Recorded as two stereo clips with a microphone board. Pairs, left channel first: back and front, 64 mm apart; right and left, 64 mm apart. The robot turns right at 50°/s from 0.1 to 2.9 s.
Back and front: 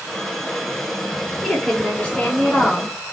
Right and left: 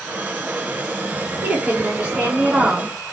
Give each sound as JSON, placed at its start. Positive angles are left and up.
{"t": 1.4, "sound": "a woman speaking", "azimuth_deg": 95, "distance_m": 1.6}